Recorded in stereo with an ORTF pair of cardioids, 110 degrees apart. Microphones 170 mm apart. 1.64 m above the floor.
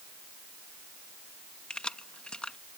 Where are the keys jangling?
5° left.